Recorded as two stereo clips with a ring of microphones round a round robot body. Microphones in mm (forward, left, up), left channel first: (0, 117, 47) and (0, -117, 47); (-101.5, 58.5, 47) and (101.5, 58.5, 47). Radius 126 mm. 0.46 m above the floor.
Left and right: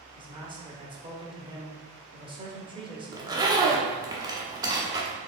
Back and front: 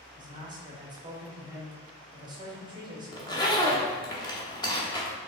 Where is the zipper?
140° right, 0.8 m.